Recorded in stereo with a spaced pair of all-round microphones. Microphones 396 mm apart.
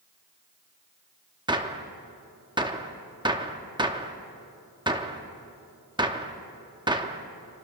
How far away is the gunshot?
About 0.7 m.